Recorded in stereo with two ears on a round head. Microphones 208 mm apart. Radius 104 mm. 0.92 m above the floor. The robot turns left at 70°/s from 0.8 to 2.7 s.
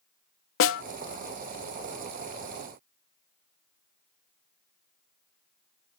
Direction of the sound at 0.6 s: 60° left (ahead or behind).